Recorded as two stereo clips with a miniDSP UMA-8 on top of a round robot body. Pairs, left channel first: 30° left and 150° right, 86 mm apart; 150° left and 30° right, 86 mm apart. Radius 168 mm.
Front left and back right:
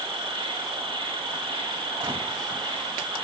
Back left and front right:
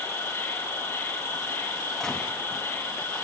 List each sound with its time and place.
0.0 s an insect: 150° right, 2.5 m
2.0 s a gunshot: 125° right, 3.5 m